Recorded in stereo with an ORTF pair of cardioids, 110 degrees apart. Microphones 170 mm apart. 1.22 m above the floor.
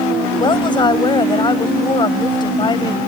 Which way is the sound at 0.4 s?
30° left.